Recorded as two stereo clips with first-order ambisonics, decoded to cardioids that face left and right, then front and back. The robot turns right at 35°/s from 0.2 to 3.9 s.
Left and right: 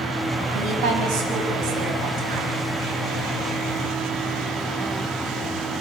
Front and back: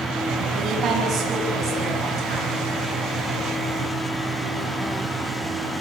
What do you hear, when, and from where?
0.5 s a woman speaking: 125° right, 8 m; by 2.6 s 55° right, 8 m